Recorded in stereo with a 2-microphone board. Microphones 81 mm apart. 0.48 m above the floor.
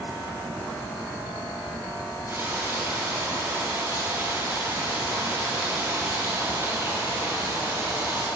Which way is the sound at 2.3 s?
30° right (ahead or behind).